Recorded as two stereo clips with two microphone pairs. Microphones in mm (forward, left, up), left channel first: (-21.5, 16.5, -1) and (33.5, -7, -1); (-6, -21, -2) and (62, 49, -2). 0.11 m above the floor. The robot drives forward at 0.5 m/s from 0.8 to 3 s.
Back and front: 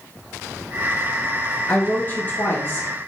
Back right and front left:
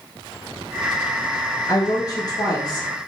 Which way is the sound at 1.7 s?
155° right.